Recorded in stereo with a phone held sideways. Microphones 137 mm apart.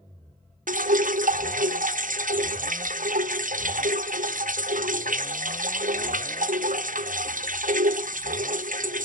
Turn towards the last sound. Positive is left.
turn(degrees=-75)  # may be behind; listen again after turning